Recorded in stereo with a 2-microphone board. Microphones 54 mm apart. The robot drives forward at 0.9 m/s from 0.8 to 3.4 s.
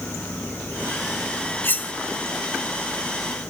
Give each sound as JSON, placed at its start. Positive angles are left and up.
{"t": 1.6, "sound": "cutlery clinking", "side_deg": 40, "distance_m": 0.8}